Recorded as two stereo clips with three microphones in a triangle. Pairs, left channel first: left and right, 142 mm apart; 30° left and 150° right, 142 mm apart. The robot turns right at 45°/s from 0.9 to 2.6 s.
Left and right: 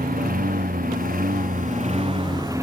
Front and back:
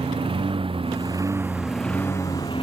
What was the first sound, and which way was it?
A lawn mower, 100° right.